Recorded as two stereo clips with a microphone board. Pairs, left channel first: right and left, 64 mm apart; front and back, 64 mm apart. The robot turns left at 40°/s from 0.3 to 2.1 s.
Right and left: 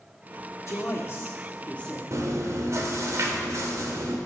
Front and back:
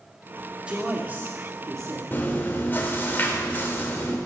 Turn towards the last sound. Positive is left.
turn(degrees=60)